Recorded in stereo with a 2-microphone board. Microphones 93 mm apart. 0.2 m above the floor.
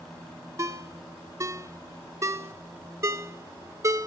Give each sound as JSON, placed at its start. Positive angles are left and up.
{"t": 0.6, "sound": "a ringtone", "side_deg": -30, "distance_m": 0.7}